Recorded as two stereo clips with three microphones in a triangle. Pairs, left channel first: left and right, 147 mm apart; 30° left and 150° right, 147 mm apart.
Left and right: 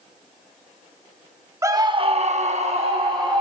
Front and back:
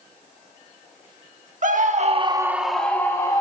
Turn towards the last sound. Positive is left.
turn(degrees=-35)